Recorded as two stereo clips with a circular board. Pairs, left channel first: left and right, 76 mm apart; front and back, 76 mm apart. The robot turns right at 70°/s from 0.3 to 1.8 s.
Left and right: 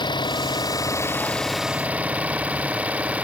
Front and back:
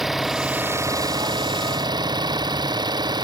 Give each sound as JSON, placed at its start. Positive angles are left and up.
{"t": 0.0, "sound": "an engine running", "azimuth_deg": 95}